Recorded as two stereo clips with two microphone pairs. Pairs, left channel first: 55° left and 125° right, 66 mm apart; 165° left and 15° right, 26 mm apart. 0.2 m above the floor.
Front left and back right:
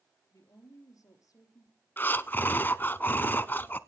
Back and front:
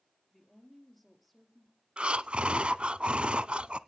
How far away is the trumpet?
I don't hear a trumpet.